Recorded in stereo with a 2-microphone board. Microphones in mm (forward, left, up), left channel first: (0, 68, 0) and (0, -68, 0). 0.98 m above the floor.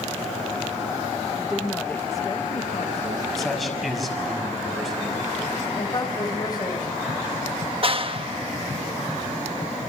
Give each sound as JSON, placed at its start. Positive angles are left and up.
{"t": 1.3, "sound": "a woman speaking", "side_deg": -10, "distance_m": 1.4}
{"t": 3.4, "sound": "a man speaking", "side_deg": 0, "distance_m": 6.0}
{"t": 5.8, "sound": "a woman speaking", "side_deg": 30, "distance_m": 4.0}
{"t": 7.8, "sound": "a clap", "side_deg": -45, "distance_m": 1.1}